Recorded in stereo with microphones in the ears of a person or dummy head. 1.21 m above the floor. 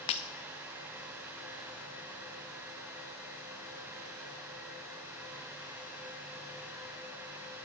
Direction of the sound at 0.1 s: 30° left (ahead or behind).